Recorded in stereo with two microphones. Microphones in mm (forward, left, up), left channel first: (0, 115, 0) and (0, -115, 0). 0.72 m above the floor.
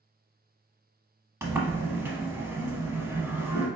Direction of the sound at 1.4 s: 15° right (ahead or behind).